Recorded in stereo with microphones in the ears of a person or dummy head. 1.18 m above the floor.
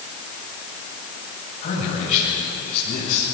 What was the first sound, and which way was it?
A man speaking, 40° left (ahead or behind).